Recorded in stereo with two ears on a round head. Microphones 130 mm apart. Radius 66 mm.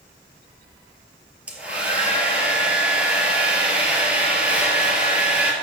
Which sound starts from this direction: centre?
A hair dryer, at 1.5 s.